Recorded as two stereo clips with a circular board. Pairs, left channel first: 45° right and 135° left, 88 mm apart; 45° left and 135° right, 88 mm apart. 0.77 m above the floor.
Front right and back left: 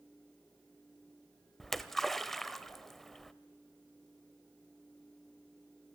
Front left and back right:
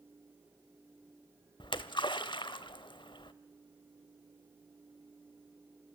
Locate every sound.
1.6 s a splash: 45° left, 0.9 m